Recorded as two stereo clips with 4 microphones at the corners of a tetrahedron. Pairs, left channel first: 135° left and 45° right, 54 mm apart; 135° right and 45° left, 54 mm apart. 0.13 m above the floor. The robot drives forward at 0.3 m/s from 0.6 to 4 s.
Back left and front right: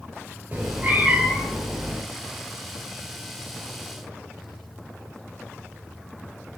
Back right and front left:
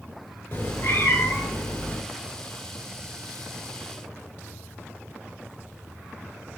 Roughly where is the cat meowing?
Right.